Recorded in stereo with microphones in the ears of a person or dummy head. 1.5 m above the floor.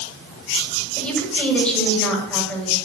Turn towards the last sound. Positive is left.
turn(degrees=5)  # may be behind; listen again after turning